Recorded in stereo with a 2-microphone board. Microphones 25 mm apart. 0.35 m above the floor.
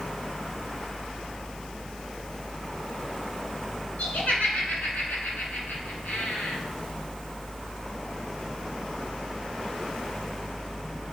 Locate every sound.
4.0 s laughter: 75° left (ahead or behind), 3.5 m